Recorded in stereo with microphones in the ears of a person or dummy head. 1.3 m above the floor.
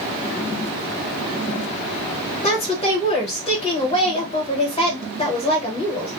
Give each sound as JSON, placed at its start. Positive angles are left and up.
{"t": 2.4, "sound": "a woman speaking", "side_deg": 30, "distance_m": 1.2}